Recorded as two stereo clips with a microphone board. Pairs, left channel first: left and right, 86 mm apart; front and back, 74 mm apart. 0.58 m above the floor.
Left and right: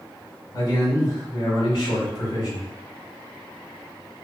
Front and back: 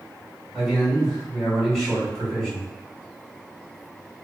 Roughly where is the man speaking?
Left.